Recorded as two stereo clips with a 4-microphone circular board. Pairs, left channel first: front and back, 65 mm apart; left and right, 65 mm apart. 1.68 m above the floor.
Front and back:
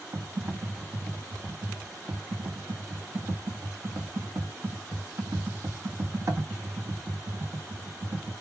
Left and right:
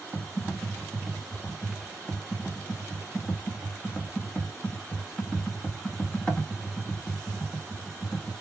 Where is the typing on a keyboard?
160° left, 0.9 m.